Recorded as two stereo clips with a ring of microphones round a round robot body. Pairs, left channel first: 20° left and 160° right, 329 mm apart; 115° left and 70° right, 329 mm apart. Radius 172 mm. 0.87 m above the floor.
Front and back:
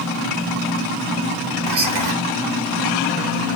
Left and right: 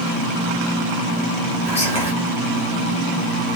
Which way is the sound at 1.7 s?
175° right.